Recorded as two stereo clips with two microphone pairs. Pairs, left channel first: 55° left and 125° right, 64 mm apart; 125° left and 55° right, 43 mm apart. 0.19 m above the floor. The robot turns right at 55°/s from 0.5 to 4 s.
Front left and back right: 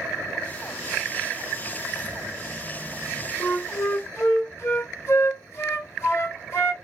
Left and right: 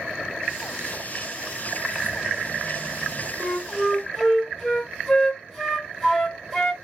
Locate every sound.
1.9 s keys jangling: 80° right, 1.2 m; by 3.3 s straight ahead, 1.2 m
3.4 s a flute: 10° left, 1.8 m; by 6.8 s 45° left, 1.8 m